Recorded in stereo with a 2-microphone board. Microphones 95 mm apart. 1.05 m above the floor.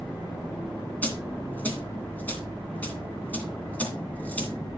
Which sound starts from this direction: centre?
A dropped coin, at 1.0 s.